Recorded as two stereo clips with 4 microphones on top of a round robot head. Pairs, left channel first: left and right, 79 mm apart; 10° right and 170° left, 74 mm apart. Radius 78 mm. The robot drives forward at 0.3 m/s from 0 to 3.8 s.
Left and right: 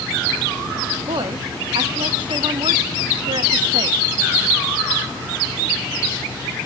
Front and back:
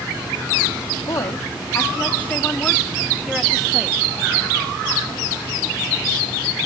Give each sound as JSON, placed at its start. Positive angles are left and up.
{"t": 1.1, "sound": "a woman speaking", "azimuth_deg": -60, "distance_m": 1.1}